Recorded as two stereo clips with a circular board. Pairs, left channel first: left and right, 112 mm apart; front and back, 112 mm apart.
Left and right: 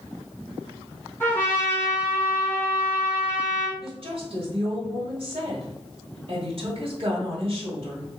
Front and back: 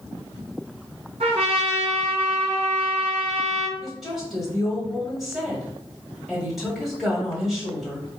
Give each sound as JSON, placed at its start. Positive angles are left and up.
{"t": 1.2, "sound": "a trumpet", "azimuth_deg": 160, "distance_m": 1.9}
{"t": 3.8, "sound": "a woman speaking", "azimuth_deg": -90, "distance_m": 1.6}